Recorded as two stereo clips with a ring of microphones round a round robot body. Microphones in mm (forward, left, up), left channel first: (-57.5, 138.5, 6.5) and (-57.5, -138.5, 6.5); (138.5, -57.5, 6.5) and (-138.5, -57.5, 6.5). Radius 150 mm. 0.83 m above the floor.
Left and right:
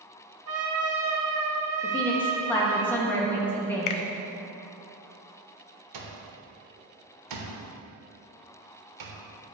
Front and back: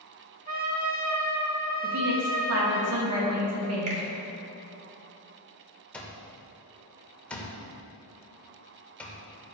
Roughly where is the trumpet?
Behind right.